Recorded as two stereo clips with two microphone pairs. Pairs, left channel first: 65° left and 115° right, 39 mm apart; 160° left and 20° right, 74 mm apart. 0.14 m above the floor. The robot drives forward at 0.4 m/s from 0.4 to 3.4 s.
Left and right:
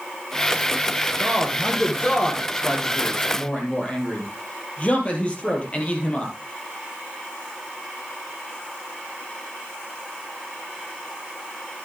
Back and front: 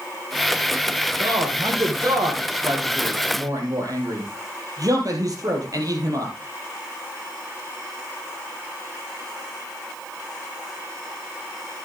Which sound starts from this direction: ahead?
A man speaking, at 1.2 s.